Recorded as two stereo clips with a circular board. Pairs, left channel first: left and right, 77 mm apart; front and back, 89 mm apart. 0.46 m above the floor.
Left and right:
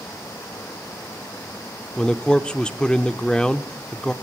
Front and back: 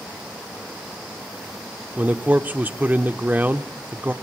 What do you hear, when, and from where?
2.0 s a man speaking: 145° left, 0.7 m